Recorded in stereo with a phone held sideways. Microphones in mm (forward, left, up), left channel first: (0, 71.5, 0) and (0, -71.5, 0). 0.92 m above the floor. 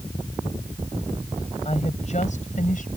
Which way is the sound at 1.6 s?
45° left (ahead or behind).